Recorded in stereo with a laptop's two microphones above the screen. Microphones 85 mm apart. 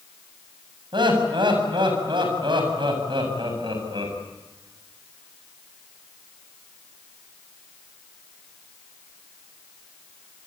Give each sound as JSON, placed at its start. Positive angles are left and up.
{"t": 0.9, "sound": "laughter", "side_deg": -75, "distance_m": 8.0}